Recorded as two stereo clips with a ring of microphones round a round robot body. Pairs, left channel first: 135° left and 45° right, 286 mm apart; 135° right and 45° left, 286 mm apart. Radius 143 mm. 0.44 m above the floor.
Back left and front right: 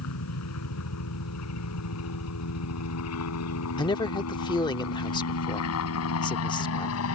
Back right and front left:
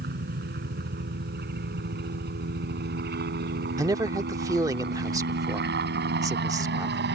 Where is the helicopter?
100° left; by 7.2 s 95° left.